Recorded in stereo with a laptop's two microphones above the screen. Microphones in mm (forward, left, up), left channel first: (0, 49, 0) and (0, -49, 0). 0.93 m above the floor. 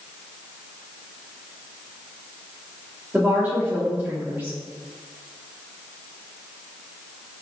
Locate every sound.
3.1 s a woman speaking: 20° right (ahead or behind), 1.8 m